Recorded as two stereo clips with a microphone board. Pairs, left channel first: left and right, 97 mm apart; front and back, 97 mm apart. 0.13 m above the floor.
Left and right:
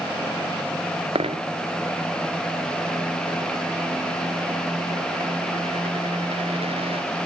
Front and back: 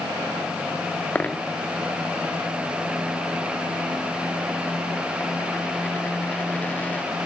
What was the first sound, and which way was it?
A dropped coin, 75° right.